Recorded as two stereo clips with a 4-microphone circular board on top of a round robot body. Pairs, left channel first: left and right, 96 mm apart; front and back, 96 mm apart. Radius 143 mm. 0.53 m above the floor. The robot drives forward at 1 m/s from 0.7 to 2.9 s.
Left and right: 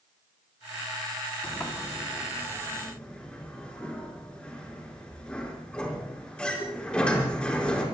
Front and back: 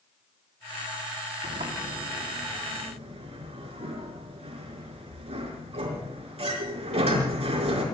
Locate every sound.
1.4 s a sliding door: 165° left, 3.5 m; by 7.8 s 170° left, 5 m